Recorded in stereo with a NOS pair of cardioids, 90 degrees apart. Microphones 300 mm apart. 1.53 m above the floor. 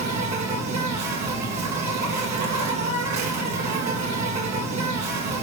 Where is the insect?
65° right, 2.5 m.